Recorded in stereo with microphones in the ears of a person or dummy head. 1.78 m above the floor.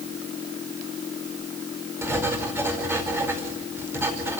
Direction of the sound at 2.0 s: 15° right (ahead or behind).